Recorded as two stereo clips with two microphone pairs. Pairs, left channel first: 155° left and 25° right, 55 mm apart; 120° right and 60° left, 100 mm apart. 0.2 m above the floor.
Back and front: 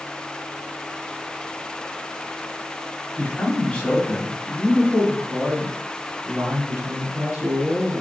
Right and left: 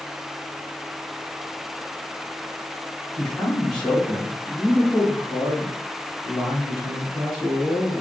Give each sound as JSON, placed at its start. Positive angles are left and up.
{"t": 3.2, "sound": "a man speaking", "azimuth_deg": 165, "distance_m": 1.3}